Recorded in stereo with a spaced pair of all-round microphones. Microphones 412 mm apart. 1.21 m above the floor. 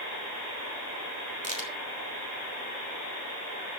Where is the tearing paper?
No tearing paper in this recording.